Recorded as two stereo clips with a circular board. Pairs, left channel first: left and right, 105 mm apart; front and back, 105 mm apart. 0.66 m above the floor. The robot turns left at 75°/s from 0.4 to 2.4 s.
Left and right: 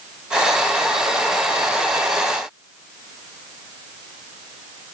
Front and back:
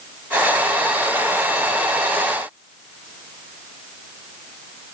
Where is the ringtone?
I don't hear a ringtone.